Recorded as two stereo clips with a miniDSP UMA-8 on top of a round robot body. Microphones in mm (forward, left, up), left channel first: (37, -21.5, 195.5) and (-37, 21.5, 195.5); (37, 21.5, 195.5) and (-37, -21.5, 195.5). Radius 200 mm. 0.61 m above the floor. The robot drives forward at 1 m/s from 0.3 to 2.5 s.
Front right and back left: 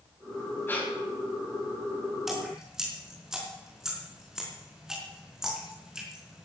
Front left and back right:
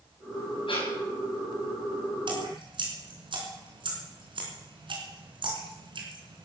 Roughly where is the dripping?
Behind right.